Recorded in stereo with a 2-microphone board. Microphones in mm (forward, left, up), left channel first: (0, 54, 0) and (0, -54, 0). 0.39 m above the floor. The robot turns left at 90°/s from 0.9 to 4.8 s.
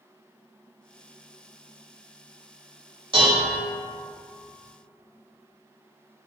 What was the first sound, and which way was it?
Dishes clattering, 65° right.